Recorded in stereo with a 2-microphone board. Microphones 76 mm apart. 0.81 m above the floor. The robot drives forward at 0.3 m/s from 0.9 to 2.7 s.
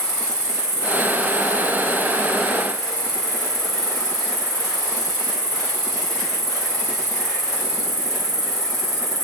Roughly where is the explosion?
No explosion in this recording.